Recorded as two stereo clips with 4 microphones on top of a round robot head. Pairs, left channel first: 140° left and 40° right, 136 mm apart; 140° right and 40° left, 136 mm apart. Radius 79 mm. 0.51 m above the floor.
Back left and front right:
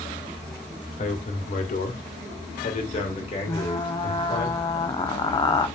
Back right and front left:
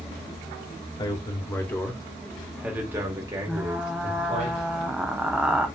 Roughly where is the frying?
Behind left.